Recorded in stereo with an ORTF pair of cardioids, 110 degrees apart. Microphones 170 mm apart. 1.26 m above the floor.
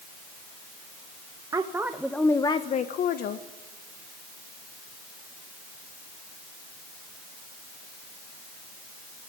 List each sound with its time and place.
1.5 s a woman speaking: 20° right, 1.9 m; by 3.5 s 80° left, 1.8 m